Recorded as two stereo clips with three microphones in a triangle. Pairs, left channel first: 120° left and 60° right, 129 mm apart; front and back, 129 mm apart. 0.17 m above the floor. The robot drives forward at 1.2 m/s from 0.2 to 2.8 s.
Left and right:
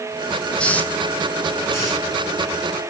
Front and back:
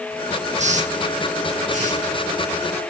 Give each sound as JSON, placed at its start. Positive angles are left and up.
{"t": 0.6, "sound": "a hiss", "azimuth_deg": -160, "distance_m": 1.5}